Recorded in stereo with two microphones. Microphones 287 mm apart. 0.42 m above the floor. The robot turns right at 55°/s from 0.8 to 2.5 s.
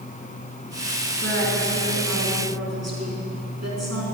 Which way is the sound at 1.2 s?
140° right.